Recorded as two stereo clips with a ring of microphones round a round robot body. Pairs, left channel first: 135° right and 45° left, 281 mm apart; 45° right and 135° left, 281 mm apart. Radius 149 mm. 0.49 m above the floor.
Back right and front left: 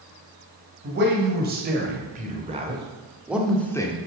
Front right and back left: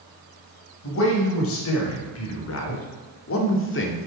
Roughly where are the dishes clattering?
I don't hear dishes clattering.